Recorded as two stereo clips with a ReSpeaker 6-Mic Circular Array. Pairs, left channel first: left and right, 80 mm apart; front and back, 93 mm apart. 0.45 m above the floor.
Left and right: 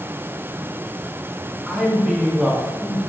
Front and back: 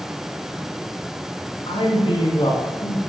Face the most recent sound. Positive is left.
turn(degrees=-10)